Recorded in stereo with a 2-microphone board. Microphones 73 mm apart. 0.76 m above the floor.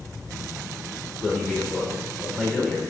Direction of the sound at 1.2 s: 5° right (ahead or behind).